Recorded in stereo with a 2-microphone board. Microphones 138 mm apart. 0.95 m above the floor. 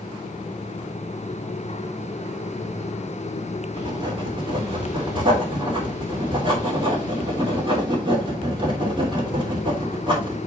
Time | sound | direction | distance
3.8 | writing | 35° right (ahead or behind) | 3.5 m